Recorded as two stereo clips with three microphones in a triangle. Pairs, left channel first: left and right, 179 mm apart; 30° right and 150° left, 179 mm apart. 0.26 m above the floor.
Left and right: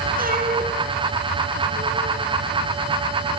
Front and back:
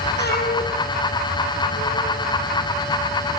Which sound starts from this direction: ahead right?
A cat meowing, at 0.2 s.